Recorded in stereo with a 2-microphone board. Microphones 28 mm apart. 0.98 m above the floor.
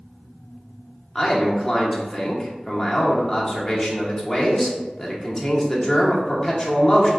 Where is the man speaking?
10° left (ahead or behind), 1.0 m.